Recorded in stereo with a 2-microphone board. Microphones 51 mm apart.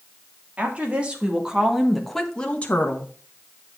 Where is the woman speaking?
30° right (ahead or behind), 2.5 m; by 3.1 s 50° left (ahead or behind), 1.5 m.